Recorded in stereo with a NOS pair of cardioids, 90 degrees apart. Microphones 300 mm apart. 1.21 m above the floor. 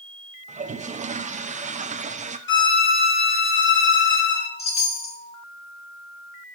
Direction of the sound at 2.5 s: 40° left.